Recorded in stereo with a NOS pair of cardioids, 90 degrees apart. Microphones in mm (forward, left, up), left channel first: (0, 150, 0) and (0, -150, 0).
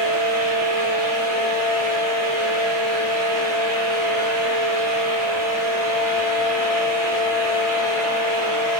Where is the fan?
65° right, 1.9 m.